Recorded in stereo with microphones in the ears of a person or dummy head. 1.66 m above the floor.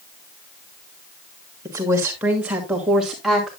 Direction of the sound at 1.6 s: 10° right (ahead or behind).